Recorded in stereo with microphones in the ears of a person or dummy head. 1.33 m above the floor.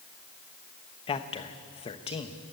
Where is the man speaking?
25° left (ahead or behind), 1.1 m.